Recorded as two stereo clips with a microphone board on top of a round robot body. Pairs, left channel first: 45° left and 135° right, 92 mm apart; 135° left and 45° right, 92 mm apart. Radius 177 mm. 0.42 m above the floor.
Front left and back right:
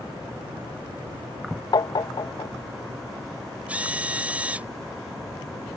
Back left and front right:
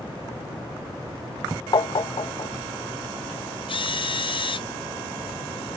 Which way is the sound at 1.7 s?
90° left.